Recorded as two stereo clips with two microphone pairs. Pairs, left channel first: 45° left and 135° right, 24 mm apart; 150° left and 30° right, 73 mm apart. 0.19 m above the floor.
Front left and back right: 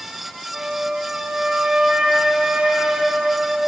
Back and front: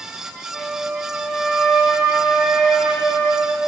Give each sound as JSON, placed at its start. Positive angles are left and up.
{"t": 0.5, "sound": "a flute", "azimuth_deg": -110, "distance_m": 1.0}